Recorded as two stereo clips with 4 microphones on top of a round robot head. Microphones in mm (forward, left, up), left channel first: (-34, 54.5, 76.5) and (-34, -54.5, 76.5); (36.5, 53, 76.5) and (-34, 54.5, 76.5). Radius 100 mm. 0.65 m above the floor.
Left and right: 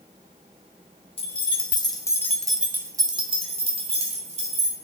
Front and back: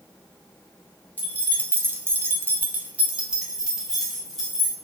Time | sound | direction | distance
1.2 | keys jangling | 115° left | 1.0 m